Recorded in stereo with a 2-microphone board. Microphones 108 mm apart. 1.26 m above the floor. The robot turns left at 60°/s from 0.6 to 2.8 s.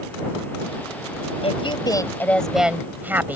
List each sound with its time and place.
1.4 s a woman speaking: 65° left; by 3.4 s 15° right